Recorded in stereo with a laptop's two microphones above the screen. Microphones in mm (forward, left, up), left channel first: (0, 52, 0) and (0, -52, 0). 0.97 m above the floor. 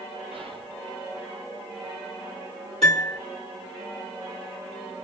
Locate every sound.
0.3 s whispering: 60° right (ahead or behind), 0.7 m
2.8 s a piano: 80° right, 1.2 m